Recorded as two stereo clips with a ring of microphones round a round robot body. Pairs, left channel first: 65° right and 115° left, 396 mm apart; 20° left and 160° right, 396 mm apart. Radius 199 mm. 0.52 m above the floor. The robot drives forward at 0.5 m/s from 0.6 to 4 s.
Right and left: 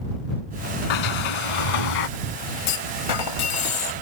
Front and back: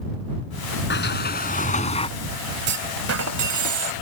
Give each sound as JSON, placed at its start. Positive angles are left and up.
{"t": 0.9, "sound": "a sliding door", "azimuth_deg": -40}
{"t": 2.7, "sound": "a clunk", "azimuth_deg": -90}